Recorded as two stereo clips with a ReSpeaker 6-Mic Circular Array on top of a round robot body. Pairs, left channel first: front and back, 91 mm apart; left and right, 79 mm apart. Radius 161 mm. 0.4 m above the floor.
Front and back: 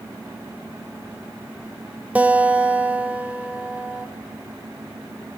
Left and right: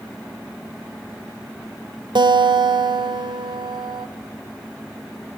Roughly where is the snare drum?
I don't hear a snare drum.